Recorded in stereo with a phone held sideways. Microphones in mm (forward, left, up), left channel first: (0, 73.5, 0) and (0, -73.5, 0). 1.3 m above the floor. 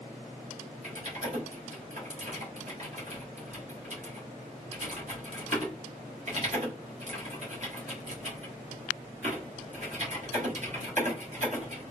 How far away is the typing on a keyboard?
About 1.7 m.